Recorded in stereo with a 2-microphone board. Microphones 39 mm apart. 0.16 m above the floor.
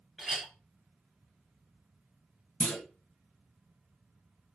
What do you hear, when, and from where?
0.2 s a clink: 5° right (ahead or behind), 1.7 m
2.6 s a clunk: 65° left (ahead or behind), 0.9 m